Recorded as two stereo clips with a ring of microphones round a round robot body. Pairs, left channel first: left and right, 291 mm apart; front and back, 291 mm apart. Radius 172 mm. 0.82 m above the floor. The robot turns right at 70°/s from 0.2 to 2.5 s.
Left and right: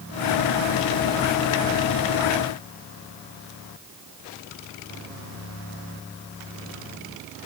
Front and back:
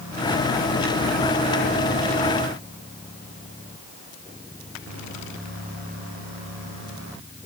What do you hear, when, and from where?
Only background noise.